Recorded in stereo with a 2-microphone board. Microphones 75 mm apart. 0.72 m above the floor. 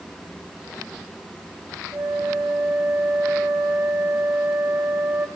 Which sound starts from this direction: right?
A flute, at 1.9 s.